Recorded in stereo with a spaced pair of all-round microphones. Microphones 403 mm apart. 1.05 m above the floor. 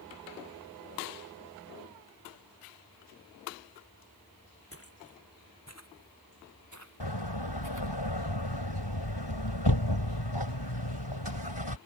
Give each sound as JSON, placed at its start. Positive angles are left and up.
{"t": 4.7, "sound": "footsteps", "side_deg": 35}
{"t": 7.0, "sound": "a door slam", "side_deg": 85}